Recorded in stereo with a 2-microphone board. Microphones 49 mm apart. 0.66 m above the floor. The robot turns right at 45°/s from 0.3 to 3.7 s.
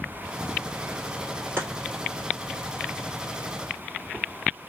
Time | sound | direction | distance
1.6 | chopping | 50° right (ahead or behind) | 1.5 m